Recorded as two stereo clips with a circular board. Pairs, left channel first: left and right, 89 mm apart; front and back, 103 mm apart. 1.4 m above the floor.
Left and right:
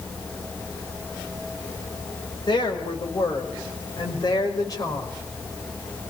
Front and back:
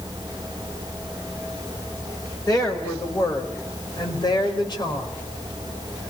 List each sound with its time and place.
2.5 s a woman speaking: 55° left, 5.5 m; by 6.1 s 35° left, 5 m